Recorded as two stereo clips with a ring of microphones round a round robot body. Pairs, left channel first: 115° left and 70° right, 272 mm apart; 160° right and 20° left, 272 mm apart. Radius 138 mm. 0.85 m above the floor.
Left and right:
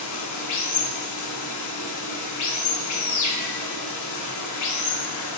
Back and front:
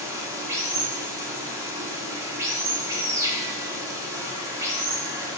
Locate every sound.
0.0 s running water: 100° left, 1.1 m